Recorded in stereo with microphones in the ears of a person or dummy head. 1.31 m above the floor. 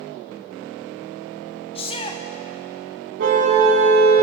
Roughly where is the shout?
Left.